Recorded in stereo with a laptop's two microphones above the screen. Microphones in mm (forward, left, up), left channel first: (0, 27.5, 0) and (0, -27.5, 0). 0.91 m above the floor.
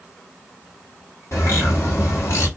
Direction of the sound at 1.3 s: 65° left (ahead or behind).